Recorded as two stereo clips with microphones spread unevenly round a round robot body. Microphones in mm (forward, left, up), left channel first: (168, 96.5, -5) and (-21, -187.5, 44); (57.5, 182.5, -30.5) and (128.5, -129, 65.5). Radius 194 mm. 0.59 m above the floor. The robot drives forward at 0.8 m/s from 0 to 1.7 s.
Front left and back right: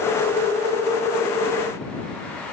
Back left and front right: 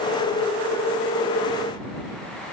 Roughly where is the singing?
No singing in this recording.